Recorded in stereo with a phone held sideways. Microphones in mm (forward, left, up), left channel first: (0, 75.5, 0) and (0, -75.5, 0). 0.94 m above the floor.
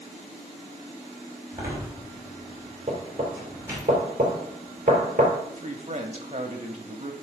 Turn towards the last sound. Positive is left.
turn(degrees=-50)  # may be behind; listen again after turning